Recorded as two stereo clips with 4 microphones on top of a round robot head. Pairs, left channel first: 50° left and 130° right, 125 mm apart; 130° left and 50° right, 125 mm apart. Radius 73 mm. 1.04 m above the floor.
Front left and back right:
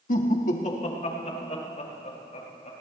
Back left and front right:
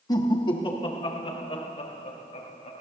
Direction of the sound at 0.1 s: 70° left.